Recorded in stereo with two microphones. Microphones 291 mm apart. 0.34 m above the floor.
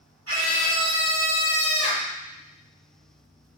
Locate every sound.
0.3 s a scream: 55° right (ahead or behind), 2.5 m; by 2.1 s 25° left (ahead or behind), 1.0 m